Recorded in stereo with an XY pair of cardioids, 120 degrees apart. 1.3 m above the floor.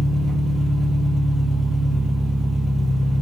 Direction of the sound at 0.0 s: 5° right.